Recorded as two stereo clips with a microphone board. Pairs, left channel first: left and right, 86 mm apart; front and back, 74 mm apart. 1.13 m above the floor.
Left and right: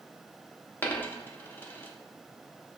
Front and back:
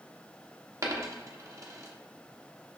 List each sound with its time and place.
0.8 s a dropped coin: 155° left, 0.6 m